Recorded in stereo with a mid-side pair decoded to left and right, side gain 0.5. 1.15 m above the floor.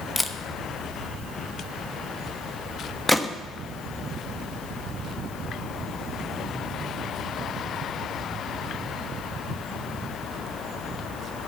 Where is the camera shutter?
10° left, 1.0 m.